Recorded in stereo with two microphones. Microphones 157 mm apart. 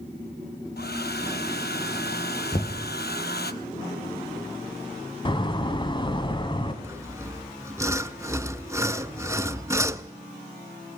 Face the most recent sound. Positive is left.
turn(degrees=-20)  # may be behind; listen again after turning